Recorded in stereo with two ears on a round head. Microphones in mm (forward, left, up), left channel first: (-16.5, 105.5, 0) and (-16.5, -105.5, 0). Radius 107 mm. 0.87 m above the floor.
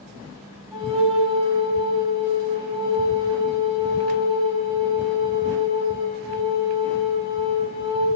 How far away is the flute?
About 1.7 m.